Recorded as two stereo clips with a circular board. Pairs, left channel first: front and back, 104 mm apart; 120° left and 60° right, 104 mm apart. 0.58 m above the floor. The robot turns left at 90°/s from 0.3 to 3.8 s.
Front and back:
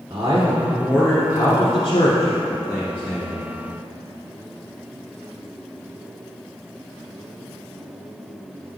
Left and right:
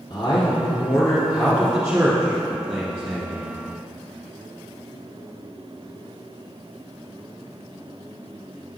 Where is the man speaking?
145° left, 1.5 m; by 3.6 s 150° right, 1.5 m.